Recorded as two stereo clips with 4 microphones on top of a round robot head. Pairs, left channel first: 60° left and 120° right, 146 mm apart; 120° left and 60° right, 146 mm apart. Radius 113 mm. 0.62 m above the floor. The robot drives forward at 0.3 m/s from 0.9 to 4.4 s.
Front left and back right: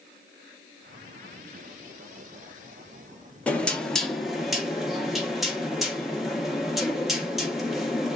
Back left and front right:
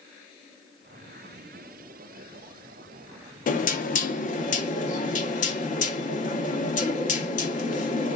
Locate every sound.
3.5 s knocking: 140° left, 0.8 m; by 8.2 s 150° left, 1.0 m